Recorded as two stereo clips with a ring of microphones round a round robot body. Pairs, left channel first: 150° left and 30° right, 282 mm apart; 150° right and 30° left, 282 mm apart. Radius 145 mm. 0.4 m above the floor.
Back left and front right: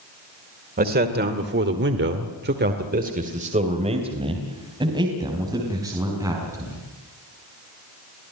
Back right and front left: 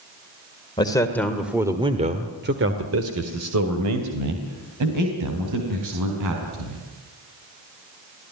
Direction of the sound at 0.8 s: 80° right.